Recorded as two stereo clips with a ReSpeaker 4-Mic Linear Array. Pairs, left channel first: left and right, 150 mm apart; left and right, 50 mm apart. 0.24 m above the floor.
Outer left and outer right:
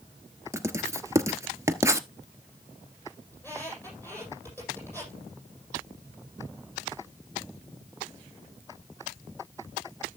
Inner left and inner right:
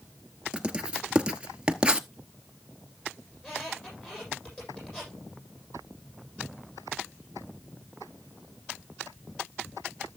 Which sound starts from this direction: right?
Writing, at 0.5 s.